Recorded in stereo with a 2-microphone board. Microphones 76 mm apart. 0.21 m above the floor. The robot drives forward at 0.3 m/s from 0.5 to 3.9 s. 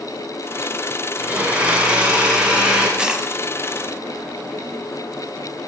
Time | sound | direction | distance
1.2 | a blender | 20° right (ahead or behind) | 1.0 m
3.0 | a dropped coin | 10° right (ahead or behind) | 0.5 m